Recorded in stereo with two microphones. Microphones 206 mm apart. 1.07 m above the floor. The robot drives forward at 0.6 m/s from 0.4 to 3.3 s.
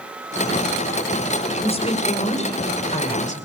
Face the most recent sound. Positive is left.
turn(degrees=35)  # may be behind; listen again after turning